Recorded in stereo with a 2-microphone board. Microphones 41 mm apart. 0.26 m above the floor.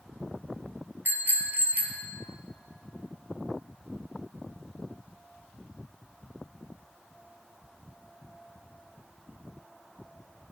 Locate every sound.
1.1 s a bicycle bell: 55° right (ahead or behind), 3.5 m; by 2.1 s 45° right (ahead or behind), 4.5 m